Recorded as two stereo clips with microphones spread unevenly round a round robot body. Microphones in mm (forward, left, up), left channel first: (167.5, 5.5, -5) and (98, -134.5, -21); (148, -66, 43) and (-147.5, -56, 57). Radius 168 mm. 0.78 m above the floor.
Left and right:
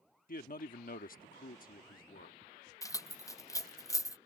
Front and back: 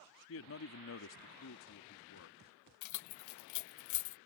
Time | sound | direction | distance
0.3 | a man speaking | 40° left | ?
2.8 | keys jangling | 10° right | ?